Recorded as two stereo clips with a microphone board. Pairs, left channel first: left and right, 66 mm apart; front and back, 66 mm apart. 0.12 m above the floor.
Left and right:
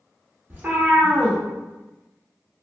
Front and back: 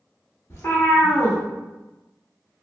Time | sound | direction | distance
0.5 | a cat meowing | 35° right | 1.2 m